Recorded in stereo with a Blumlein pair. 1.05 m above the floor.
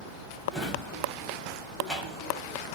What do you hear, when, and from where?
0.5 s a drawer: 5° left, 1.3 m